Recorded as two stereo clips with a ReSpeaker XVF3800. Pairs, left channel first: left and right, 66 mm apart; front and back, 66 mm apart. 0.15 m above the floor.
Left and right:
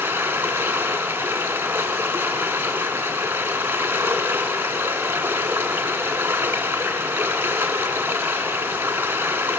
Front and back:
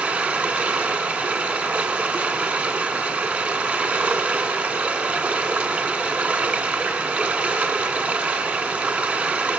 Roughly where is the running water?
Behind right.